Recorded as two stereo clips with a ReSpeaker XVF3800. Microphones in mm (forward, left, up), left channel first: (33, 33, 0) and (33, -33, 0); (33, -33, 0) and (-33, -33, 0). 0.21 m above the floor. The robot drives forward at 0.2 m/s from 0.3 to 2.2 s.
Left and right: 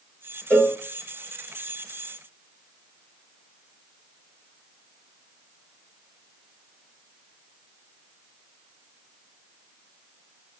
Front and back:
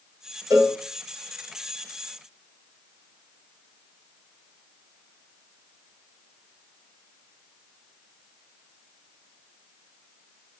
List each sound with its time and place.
0.5 s a cowbell: 155° left, 2 m; by 0.8 s 160° left, 2 m